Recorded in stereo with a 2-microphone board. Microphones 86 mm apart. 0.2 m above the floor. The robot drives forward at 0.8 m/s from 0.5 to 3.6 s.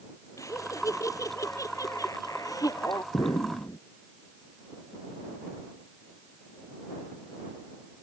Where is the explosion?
55° left (ahead or behind); by 3.8 s 50° left (ahead or behind).